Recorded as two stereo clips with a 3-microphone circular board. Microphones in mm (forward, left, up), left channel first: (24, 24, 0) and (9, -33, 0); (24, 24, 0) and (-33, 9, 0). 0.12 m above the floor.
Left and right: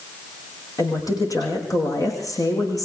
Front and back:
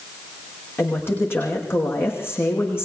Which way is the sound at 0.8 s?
65° left.